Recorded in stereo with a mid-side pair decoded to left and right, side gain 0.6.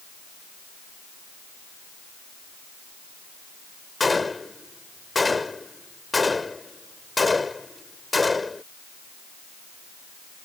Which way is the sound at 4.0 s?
15° left.